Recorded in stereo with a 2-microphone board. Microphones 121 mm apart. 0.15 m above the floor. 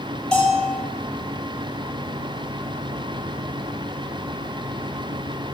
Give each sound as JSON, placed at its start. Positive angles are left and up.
{"t": 0.3, "sound": "a bell", "side_deg": 5, "distance_m": 4.0}